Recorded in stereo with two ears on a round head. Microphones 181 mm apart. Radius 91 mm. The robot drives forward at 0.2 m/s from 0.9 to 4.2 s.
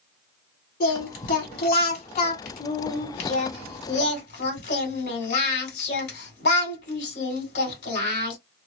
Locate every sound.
0.8 s singing: 45° left (ahead or behind), 2 m; by 8.4 s 55° left (ahead or behind), 1.9 m